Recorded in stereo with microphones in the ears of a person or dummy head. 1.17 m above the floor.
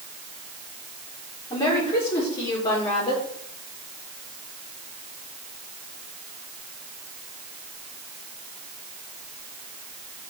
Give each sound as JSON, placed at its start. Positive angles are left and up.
{"t": 1.5, "sound": "a woman speaking", "side_deg": 25, "distance_m": 4.0}